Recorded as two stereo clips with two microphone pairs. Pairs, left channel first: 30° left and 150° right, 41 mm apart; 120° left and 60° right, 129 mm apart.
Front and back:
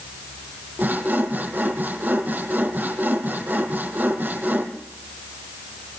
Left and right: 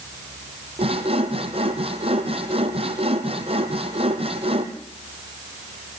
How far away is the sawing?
About 2.5 m.